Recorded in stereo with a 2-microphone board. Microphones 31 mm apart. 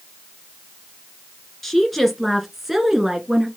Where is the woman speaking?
10° left (ahead or behind), 1.9 m; by 3.5 s 20° right (ahead or behind), 1.9 m.